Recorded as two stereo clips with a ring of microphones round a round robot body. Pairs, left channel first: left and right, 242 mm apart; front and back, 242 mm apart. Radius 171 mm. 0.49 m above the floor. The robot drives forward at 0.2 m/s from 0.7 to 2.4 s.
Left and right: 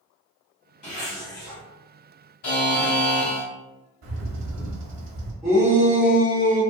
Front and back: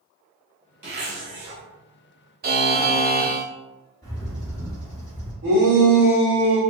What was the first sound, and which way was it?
A zipper, 135° left.